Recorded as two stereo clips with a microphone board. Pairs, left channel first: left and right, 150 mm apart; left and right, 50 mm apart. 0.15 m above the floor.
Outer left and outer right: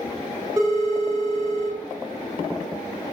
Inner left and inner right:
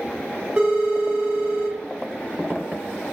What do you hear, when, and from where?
0.6 s a phone ringing: 25° right (ahead or behind), 1.2 m